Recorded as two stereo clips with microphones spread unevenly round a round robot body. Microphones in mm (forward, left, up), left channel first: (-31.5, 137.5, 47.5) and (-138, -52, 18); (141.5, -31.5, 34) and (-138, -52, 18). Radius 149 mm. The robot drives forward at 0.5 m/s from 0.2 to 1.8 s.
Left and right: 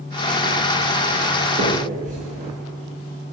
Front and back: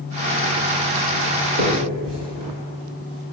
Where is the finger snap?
170° right, 3.5 m.